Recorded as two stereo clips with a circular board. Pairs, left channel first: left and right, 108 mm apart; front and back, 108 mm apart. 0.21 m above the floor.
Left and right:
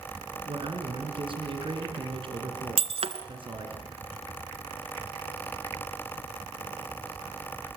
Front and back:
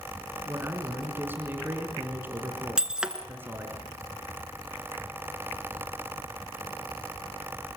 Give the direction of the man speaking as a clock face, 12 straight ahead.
4 o'clock.